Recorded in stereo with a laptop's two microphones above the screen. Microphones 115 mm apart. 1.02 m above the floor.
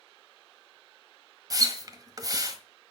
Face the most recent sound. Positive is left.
turn(degrees=-35)  # may be behind; listen again after turning